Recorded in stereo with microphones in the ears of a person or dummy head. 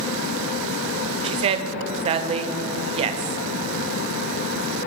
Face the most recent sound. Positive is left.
turn(degrees=-35)  # may be behind; listen again after turning